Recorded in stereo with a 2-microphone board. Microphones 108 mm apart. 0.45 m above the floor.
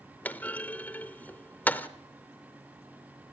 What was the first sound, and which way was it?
A clunk, 15° left (ahead or behind).